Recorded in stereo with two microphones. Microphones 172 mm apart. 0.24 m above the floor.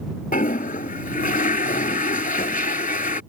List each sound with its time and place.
0.3 s a toilet flushing: 55° left (ahead or behind)